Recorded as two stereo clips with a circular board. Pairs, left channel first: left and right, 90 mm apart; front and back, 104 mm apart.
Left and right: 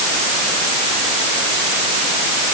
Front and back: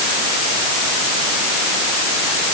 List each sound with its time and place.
Only background noise.